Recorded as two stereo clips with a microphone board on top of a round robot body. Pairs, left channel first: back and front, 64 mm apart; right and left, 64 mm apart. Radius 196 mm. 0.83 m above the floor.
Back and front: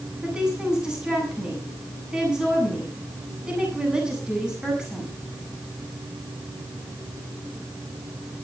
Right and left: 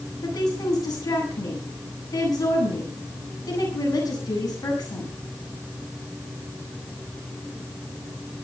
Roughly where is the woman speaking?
Right.